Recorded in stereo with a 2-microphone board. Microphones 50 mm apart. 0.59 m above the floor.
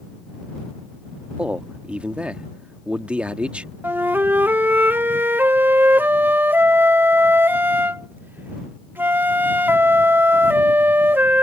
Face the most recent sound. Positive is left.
turn(degrees=-45)  # may be behind; listen again after turning